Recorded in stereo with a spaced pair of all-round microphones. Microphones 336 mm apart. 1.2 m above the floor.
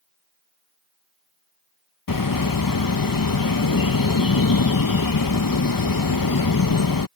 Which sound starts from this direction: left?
A bird, at 2.1 s.